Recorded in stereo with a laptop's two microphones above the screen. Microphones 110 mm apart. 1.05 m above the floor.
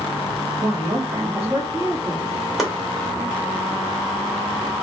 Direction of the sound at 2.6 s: 5° right (ahead or behind).